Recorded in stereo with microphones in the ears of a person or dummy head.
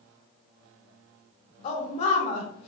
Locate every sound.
1.6 s a woman speaking: 40° left (ahead or behind), 0.6 m